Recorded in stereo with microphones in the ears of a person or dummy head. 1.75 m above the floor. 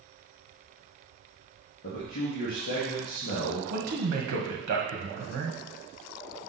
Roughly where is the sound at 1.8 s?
Left.